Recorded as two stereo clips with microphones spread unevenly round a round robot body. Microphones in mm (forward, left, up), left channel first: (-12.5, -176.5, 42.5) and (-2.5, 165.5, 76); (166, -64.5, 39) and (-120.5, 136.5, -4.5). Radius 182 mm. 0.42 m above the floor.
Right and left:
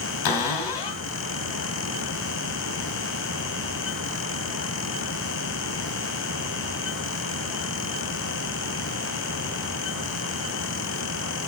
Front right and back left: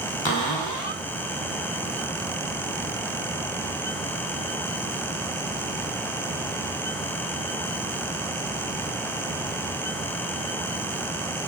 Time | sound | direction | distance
0.2 | a cupboard door | 110° right | 1.9 m